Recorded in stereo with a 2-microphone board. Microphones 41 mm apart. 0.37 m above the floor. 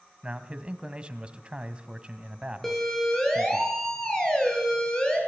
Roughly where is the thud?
I don't hear a thud.